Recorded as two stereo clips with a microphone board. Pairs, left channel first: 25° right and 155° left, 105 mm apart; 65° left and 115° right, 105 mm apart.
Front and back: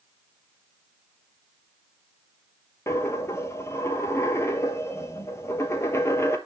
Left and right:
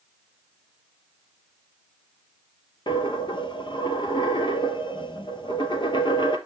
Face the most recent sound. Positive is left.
turn(degrees=40)